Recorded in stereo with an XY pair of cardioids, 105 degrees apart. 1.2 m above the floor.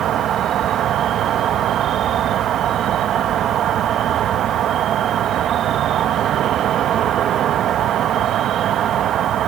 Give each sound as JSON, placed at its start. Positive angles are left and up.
{"t": 0.0, "sound": "an insect", "azimuth_deg": -65}